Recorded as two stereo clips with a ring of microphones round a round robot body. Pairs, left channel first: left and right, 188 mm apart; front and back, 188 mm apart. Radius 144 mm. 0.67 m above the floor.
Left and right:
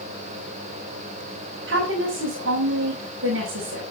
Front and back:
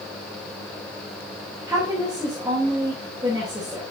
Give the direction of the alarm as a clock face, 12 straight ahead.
I don't hear an alarm.